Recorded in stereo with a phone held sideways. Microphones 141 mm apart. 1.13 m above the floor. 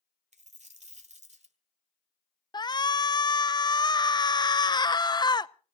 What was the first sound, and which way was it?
A dropped coin, 55° right (ahead or behind).